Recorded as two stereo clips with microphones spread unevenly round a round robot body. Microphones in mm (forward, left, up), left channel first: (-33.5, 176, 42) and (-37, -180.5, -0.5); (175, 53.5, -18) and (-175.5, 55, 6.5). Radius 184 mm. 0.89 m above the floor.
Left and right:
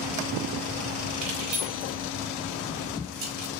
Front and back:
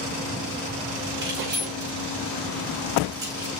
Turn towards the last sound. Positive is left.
turn(degrees=-100)